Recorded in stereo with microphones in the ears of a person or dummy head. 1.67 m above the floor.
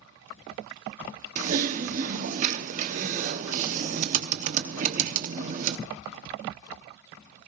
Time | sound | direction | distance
1.4 | typing on a keyboard | 40° right (ahead or behind) | 1.2 m